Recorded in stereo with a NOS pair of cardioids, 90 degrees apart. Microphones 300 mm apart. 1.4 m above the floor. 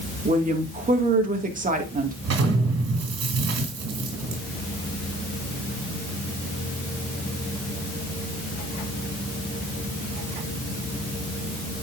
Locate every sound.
0.2 s a woman speaking: 25° right, 1.9 m
2.2 s an explosion: 60° right, 3 m